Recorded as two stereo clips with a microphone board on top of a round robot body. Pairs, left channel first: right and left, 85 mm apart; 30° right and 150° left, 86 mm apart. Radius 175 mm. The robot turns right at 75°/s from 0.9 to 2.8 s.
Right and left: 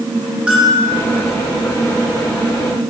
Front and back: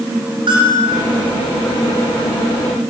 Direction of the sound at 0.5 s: 170° left.